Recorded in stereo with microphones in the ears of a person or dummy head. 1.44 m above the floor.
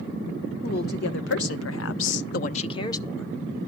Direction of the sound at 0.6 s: 60° left (ahead or behind).